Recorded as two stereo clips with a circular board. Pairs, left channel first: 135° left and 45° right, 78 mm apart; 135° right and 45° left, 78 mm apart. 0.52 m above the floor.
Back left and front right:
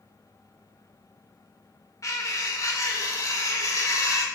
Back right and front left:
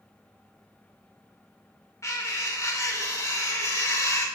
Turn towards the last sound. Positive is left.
turn(degrees=180)